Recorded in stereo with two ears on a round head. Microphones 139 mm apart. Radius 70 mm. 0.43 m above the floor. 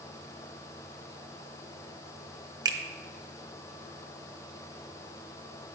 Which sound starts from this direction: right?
A finger snap, at 2.6 s.